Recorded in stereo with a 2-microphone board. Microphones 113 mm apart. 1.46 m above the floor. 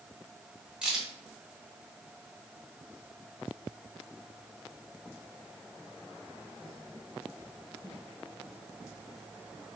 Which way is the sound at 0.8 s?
5° right (ahead or behind).